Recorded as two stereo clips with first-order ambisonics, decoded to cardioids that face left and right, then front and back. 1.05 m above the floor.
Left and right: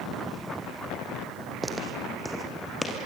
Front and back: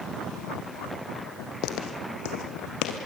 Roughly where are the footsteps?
Ahead.